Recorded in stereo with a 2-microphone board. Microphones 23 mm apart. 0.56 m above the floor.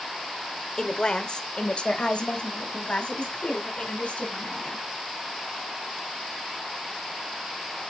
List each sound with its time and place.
0.8 s a woman speaking: 30° left (ahead or behind), 1.3 m; by 4.8 s 60° left (ahead or behind), 4 m